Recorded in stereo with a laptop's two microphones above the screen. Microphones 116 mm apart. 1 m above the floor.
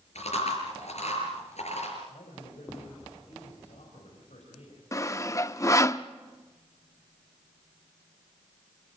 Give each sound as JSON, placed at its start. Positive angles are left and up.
{"t": 0.1, "sound": "chewing", "side_deg": 75, "distance_m": 5.5}
{"t": 2.1, "sound": "a man speaking", "side_deg": 80, "distance_m": 5.5}
{"t": 4.9, "sound": "sawing", "side_deg": 25, "distance_m": 0.6}